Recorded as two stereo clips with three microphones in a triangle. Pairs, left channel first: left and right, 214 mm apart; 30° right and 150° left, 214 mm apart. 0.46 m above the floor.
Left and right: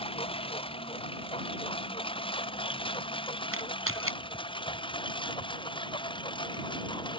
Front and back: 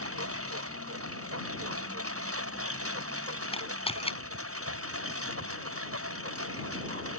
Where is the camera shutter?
95° right.